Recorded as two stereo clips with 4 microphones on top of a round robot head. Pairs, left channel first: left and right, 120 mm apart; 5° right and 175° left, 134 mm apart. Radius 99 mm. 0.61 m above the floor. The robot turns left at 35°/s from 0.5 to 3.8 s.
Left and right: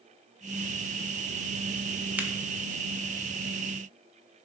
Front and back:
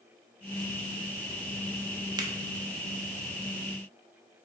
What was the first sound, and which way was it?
A finger snap, 155° right.